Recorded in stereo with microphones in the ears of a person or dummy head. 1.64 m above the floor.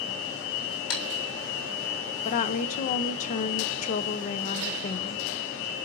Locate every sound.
0.9 s typing on a keyboard: 80° left, 4.5 m
2.2 s a woman speaking: 40° left (ahead or behind), 0.8 m